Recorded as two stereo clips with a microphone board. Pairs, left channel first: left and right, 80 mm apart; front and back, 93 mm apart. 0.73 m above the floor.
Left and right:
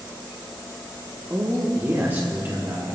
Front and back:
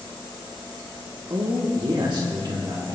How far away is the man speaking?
About 1.4 m.